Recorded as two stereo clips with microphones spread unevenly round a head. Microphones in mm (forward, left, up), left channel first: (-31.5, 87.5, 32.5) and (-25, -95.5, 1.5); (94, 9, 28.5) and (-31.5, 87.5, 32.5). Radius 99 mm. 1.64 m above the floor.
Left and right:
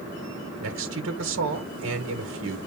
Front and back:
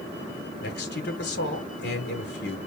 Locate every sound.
0.6 s a man speaking: 60° right, 1.5 m